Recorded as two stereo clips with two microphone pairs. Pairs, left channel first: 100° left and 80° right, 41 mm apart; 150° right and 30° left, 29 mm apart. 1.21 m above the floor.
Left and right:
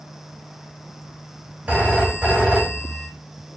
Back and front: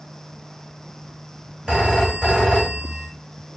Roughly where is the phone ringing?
Ahead right.